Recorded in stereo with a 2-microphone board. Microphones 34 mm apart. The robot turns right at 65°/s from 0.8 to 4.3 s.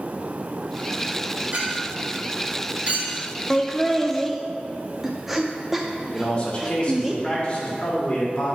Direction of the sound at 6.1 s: 35° left (ahead or behind).